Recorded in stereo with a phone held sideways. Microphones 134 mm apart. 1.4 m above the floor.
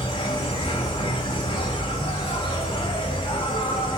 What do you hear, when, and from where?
0.0 s an insect: 40° left (ahead or behind), 2 m